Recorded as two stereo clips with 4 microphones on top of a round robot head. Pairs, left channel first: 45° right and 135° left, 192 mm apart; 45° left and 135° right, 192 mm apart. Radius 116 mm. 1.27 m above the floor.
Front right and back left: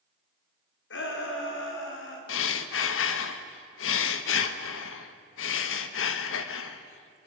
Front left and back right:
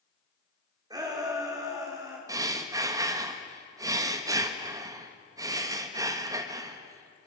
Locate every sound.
0.9 s a shout: 65° right, 4 m; by 2.2 s 60° right, 5 m
2.3 s breathing: 60° right, 1.1 m